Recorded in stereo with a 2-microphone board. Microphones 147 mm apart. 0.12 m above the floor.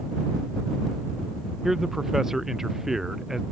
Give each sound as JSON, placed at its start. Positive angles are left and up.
{"t": 1.6, "sound": "a man speaking", "side_deg": 0}